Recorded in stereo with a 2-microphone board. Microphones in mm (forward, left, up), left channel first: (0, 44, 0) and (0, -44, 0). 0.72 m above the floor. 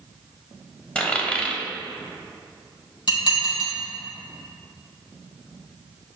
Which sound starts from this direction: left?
Dishes clattering, at 3.1 s.